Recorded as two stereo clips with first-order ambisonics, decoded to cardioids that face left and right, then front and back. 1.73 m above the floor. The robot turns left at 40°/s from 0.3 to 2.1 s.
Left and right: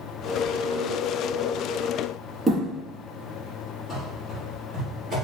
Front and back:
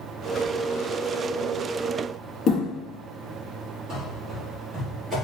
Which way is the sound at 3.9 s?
175° right.